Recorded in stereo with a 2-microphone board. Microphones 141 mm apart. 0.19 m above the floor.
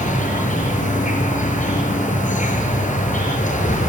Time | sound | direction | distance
0.0 | an insect | 60° left (ahead or behind) | 6 m